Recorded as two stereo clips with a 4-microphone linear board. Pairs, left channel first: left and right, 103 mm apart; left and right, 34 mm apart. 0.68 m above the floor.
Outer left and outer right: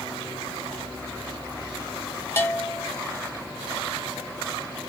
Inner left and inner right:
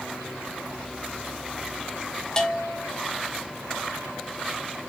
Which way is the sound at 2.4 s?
25° left (ahead or behind).